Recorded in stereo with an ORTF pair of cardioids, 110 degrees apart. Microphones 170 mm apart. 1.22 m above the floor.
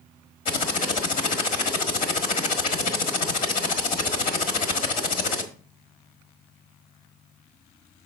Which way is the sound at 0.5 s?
55° left.